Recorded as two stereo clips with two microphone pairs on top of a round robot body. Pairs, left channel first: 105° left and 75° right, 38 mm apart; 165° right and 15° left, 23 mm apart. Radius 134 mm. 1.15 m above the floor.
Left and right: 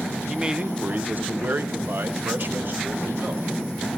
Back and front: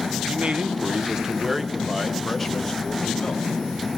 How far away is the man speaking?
About 1.2 m.